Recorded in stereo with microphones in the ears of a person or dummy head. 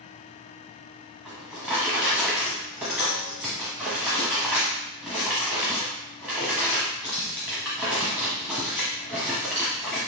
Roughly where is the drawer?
Centre.